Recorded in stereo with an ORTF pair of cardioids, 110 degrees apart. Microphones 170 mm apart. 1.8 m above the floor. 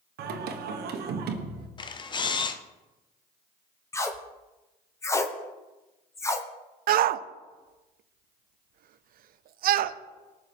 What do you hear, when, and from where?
0.2 s singing: 70° right, 1.6 m
1.8 s a camera shutter: 25° left, 0.9 m
3.9 s tape being pulled: 15° left, 1.3 m
6.9 s a shout: 60° right, 0.7 m